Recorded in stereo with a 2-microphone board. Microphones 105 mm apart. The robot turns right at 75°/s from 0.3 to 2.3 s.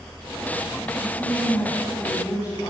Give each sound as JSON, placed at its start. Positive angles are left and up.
{"t": 1.0, "sound": "a woman speaking", "azimuth_deg": -40, "distance_m": 7.0}